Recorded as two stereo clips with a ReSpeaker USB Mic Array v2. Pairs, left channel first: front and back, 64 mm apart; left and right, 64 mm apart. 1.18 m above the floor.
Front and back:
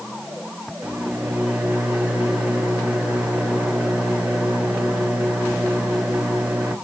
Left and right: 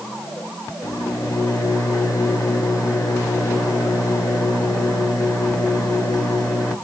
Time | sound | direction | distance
0.8 | a microwave | 110° left | 1.8 m